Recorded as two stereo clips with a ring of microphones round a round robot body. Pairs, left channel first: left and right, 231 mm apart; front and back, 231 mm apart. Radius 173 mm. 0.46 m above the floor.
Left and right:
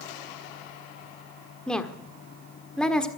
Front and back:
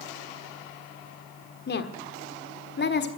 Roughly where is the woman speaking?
Ahead.